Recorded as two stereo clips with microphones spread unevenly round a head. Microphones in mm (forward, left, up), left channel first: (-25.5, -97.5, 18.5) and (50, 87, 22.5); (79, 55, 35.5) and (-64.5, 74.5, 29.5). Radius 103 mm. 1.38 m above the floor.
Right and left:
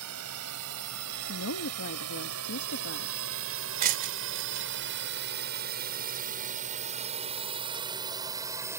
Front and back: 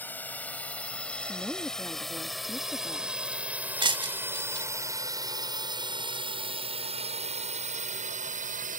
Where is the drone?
70° left; by 8.8 s 145° left.